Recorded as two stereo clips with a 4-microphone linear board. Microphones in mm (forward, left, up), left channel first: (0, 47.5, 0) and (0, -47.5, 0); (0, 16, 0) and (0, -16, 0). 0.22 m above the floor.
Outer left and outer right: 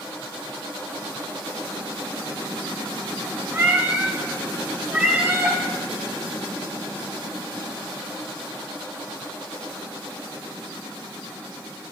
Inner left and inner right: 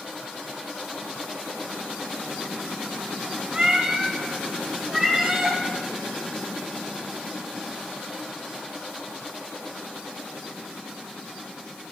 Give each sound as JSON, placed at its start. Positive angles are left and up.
{"t": 3.5, "sound": "a cat meowing", "side_deg": -15, "distance_m": 1.6}